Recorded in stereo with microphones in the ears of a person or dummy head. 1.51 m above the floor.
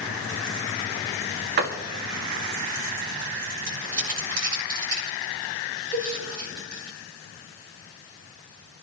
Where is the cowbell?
45° right (ahead or behind), 6 m.